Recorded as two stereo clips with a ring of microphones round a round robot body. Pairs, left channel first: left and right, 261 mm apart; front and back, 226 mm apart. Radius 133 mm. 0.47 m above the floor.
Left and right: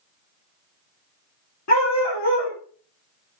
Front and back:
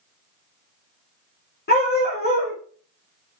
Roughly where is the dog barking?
Ahead left.